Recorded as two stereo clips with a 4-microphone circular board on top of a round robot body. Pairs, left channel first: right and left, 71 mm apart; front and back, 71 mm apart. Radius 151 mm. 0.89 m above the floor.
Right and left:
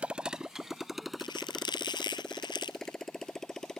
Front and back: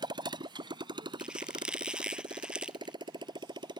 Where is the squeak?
100° right.